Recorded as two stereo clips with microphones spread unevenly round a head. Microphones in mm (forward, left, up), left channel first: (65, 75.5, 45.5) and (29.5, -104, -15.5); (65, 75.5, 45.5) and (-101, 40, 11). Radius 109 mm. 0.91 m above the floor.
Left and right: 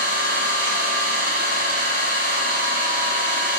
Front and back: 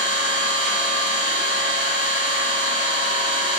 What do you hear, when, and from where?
0.0 s an engine running: 105° right, 1.7 m